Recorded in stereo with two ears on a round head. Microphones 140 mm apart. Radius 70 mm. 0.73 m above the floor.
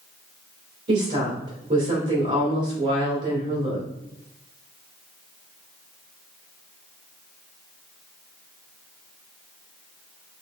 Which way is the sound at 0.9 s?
50° right (ahead or behind).